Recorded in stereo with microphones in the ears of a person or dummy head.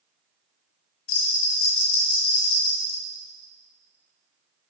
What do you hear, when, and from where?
1.1 s a bell: 45° left (ahead or behind), 1.5 m